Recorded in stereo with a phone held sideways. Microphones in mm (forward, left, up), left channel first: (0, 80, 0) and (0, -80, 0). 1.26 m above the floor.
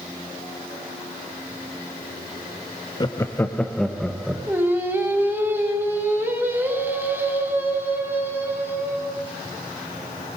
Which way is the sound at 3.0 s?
30° left (ahead or behind).